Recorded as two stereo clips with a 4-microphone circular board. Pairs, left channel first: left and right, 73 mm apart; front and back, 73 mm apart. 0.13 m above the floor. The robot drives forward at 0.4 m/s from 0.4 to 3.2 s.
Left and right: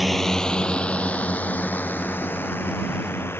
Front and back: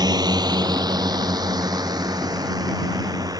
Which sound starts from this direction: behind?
A drone, at 0.0 s.